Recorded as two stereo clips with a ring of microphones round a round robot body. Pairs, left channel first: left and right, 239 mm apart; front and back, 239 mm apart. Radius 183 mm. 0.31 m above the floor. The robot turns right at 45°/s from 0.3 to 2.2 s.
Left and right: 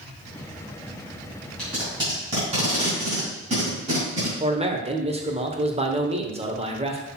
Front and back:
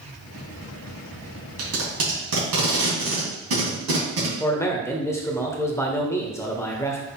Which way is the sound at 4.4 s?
65° right.